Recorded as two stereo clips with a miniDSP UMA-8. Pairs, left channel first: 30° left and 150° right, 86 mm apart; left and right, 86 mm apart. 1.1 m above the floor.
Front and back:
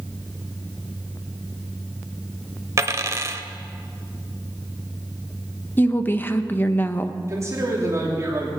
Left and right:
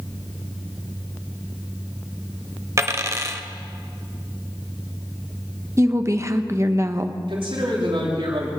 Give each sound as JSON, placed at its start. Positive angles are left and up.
{"t": 2.8, "sound": "a dropped coin", "azimuth_deg": -120, "distance_m": 1.0}
{"t": 5.8, "sound": "a woman speaking", "azimuth_deg": -35, "distance_m": 0.9}
{"t": 7.3, "sound": "a man speaking", "azimuth_deg": -95, "distance_m": 3.0}